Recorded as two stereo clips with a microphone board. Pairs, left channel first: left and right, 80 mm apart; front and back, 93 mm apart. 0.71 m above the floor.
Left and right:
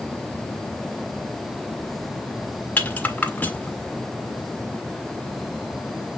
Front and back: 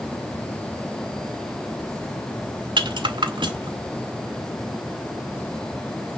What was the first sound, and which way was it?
A rattle, 160° left.